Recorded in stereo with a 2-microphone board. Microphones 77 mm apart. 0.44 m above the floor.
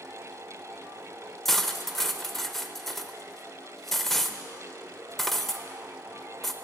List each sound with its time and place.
1.4 s cutlery clinking: 5° left (ahead or behind), 0.5 m